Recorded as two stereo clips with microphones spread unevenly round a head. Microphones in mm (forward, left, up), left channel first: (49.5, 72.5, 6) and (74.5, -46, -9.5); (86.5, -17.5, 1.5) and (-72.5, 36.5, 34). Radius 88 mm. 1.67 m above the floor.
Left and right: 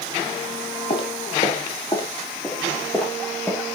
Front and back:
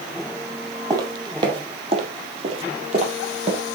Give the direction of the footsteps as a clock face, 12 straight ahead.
8 o'clock.